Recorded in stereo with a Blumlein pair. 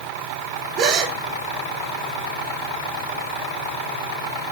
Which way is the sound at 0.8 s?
35° right.